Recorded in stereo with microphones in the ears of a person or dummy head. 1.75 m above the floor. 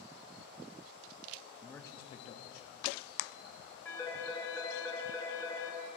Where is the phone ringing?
10° left (ahead or behind), 1.6 m.